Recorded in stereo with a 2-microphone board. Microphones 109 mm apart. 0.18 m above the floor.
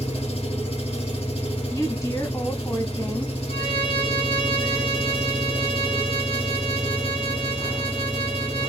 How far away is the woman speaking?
About 1.1 m.